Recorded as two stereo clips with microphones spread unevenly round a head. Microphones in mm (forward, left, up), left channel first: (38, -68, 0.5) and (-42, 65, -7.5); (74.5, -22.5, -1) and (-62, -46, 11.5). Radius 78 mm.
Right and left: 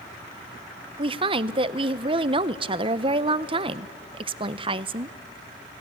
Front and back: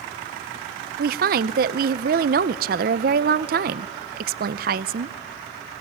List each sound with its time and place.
1.0 s a woman speaking: 175° left, 0.6 m